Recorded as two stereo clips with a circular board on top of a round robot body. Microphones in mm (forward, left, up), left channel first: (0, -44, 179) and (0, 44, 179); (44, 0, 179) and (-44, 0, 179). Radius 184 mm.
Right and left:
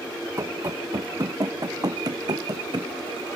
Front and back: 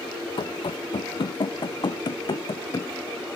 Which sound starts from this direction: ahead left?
Running footsteps, at 0.4 s.